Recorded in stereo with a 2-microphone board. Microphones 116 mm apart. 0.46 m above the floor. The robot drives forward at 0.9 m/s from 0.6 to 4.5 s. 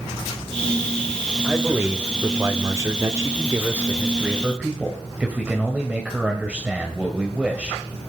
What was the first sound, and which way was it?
A man speaking, 15° right (ahead or behind).